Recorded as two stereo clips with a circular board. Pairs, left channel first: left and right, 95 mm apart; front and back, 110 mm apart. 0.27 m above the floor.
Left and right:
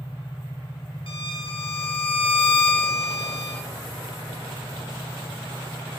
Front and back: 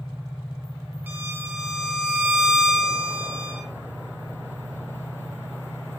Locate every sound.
1.1 s a violin: 105° left, 3 m